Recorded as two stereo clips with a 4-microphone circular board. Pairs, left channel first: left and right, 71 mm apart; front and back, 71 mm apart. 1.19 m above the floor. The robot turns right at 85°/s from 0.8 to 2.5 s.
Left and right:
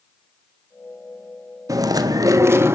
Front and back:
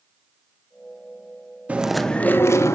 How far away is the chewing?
About 1.5 m.